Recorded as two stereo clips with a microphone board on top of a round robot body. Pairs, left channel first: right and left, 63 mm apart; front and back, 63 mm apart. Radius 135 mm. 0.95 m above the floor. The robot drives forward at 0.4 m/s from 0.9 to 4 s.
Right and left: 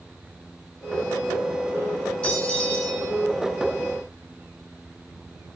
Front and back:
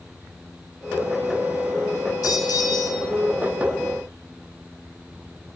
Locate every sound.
2.2 s a bell: 25° right, 9 m